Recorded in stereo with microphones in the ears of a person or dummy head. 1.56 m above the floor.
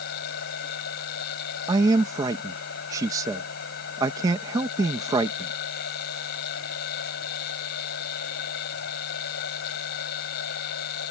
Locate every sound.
0.0 s a machine running: 65° left (ahead or behind)
1.7 s a man speaking: 20° right (ahead or behind)